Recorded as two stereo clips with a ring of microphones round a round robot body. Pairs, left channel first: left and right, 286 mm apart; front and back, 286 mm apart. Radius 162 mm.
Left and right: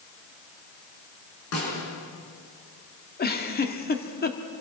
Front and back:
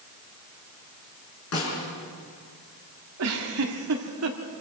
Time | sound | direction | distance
1.5 | a snare drum | 45° left | 6.5 m
3.2 | a giggle | 145° left | 1.8 m